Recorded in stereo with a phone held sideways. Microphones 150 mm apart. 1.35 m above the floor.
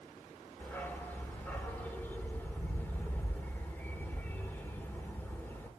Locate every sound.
0.6 s a dog barking: 10° left (ahead or behind), 1.2 m